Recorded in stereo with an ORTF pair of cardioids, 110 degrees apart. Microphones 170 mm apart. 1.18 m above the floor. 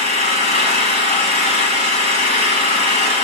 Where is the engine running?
45° left, 4 m.